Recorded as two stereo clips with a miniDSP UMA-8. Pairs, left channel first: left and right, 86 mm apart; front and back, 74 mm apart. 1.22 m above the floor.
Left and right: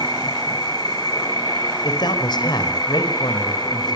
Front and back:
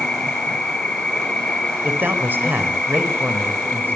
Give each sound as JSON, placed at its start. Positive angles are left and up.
{"t": 0.0, "sound": "an insect", "azimuth_deg": 75, "distance_m": 1.9}
{"t": 1.8, "sound": "a man speaking", "azimuth_deg": 120, "distance_m": 4.5}